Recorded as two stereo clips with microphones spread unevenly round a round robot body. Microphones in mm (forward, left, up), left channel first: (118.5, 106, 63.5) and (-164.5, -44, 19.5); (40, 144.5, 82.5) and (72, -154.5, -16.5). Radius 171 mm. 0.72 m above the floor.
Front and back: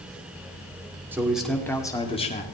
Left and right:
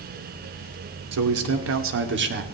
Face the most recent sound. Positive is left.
turn(degrees=-40)